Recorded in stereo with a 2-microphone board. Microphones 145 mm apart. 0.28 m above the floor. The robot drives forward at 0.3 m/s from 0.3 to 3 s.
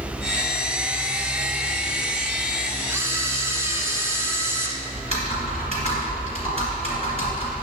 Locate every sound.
2.9 s a camera shutter: 15° right (ahead or behind), 1.0 m
5.0 s typing on a keyboard: 45° right (ahead or behind), 2.5 m